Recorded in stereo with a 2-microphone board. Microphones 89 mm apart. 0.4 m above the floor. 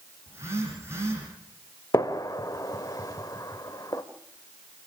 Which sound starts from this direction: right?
A phone buzzing, at 0.3 s.